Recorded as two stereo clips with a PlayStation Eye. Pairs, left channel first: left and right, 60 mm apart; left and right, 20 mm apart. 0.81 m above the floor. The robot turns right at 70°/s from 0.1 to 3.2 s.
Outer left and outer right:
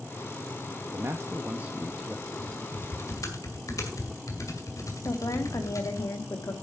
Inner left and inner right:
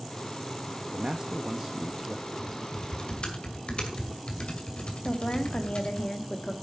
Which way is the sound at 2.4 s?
5° left (ahead or behind).